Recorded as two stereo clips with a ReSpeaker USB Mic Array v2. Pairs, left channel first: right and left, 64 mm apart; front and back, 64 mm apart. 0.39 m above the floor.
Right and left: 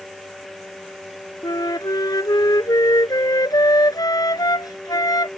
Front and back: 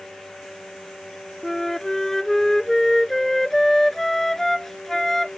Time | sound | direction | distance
1.4 | a flute | 85° right | ?